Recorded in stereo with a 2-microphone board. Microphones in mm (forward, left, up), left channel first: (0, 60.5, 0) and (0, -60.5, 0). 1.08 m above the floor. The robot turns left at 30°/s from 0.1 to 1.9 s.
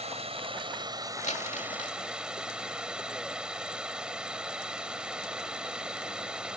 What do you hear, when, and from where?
0.0 s running water: 120° right; by 6.6 s 175° right
1.2 s crumpling: 70° left (ahead or behind); by 2.0 s 75° left (ahead or behind)